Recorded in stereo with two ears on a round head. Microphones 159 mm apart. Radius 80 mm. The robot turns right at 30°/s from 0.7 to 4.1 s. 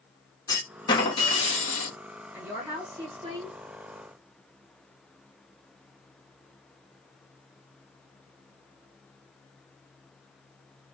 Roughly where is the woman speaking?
Behind.